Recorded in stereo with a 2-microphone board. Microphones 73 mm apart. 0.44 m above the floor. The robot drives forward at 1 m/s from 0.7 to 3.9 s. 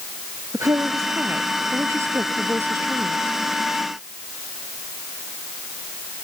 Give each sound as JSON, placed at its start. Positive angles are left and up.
{"t": 0.5, "sound": "a woman speaking", "side_deg": -45}